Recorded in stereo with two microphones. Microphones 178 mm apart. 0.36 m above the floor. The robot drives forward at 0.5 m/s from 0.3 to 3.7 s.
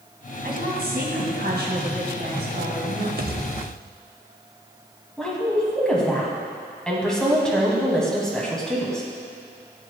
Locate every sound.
0.4 s a woman speaking: 65° right (ahead or behind), 2 m; by 3.1 s 60° right (ahead or behind), 2.5 m
3.2 s a pop: 55° right (ahead or behind), 0.5 m; by 4.0 s 65° right (ahead or behind), 0.5 m
5.2 s a woman speaking: 5° left (ahead or behind), 2 m